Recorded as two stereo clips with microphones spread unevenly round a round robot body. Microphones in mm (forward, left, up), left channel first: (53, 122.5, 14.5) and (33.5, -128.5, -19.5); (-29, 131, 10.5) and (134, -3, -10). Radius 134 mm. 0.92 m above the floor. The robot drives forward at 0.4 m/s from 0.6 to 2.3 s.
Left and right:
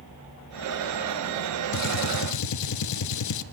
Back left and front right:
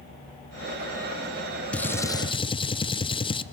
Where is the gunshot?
55° left, 0.8 m; by 3.4 s 70° left, 0.7 m.